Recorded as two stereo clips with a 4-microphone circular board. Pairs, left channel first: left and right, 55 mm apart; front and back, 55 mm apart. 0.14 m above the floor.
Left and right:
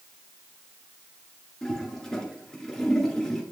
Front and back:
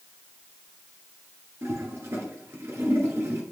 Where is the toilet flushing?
170° left, 2 m.